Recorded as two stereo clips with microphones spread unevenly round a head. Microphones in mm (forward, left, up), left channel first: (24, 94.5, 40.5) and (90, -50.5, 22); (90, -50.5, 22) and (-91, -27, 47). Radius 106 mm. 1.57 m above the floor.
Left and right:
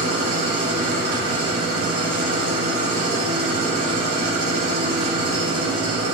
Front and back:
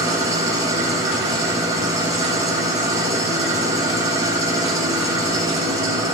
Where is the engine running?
115° right, 2 m.